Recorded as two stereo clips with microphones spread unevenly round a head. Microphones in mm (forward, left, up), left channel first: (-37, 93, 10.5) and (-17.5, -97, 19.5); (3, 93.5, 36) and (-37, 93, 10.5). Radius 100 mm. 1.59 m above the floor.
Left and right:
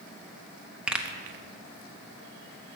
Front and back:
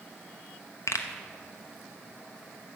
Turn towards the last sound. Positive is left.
turn(degrees=0)